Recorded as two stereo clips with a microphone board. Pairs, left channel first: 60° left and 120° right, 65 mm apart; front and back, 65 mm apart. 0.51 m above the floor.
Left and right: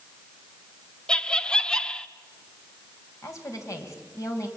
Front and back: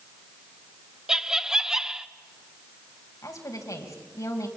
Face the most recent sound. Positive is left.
turn(degrees=30)